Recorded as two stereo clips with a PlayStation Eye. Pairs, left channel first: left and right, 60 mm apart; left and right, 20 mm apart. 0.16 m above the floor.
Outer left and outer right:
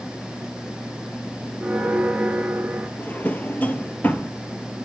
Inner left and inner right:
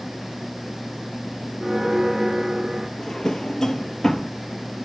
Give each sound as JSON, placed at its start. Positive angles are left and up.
{"t": 1.6, "sound": "a bell", "side_deg": -20, "distance_m": 1.4}
{"t": 3.0, "sound": "a drawer", "side_deg": 30, "distance_m": 1.0}